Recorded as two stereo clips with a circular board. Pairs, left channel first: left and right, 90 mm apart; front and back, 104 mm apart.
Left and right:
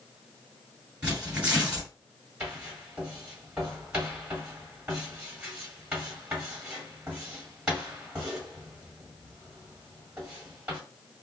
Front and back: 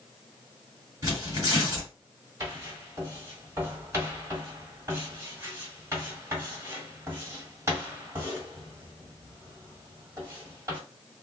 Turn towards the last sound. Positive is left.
turn(degrees=-155)